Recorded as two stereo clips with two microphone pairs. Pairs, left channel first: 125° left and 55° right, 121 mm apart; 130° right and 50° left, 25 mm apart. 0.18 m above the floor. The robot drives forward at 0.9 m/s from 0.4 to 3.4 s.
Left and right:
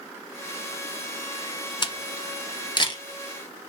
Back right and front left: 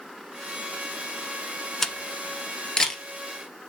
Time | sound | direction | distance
1.8 | a camera shutter | 160° left | 0.9 m